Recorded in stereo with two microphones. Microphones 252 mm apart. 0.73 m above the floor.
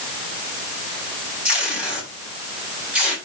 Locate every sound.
1.4 s tape being pulled: 5° right (ahead or behind), 6 m